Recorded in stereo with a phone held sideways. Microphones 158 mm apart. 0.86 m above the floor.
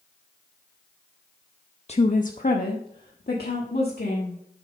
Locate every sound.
1.9 s a woman speaking: 40° left (ahead or behind), 0.6 m; by 4.4 s 80° left, 1.9 m